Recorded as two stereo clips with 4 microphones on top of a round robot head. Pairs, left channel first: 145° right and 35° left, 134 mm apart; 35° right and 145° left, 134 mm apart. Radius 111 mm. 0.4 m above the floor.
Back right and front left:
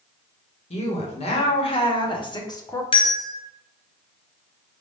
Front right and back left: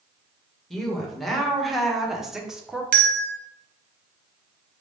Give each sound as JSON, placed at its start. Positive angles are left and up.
{"t": 0.7, "sound": "a woman speaking", "azimuth_deg": -125, "distance_m": 1.8}
{"t": 2.9, "sound": "a bell", "azimuth_deg": 160, "distance_m": 0.6}